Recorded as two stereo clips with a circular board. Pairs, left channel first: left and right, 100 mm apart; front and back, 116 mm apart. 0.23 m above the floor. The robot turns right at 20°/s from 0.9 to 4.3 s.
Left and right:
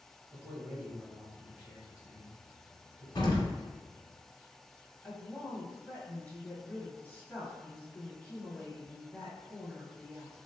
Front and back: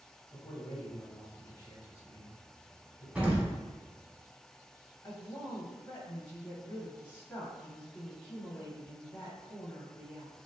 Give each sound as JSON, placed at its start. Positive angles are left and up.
{"t": 0.3, "sound": "a man speaking", "azimuth_deg": -40, "distance_m": 1.0}
{"t": 3.1, "sound": "an explosion", "azimuth_deg": 105, "distance_m": 1.1}
{"t": 5.0, "sound": "a woman speaking", "azimuth_deg": 35, "distance_m": 1.6}